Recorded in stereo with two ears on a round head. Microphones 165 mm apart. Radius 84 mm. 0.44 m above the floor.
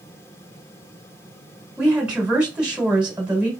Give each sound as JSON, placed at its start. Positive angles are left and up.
{"t": 1.8, "sound": "a woman speaking", "side_deg": -5, "distance_m": 1.9}